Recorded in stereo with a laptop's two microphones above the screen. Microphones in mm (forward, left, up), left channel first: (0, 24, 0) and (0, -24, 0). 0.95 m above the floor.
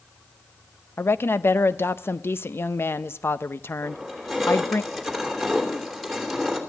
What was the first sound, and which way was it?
A woman speaking, 50° left (ahead or behind).